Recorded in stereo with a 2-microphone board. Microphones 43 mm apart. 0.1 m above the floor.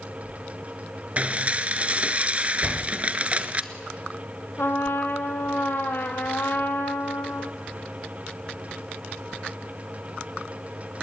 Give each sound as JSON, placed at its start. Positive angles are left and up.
{"t": 1.2, "sound": "dishes clattering", "side_deg": -35, "distance_m": 1.0}
{"t": 2.6, "sound": "a door slam", "side_deg": 15, "distance_m": 2.5}
{"t": 4.6, "sound": "a trumpet", "side_deg": 60, "distance_m": 1.9}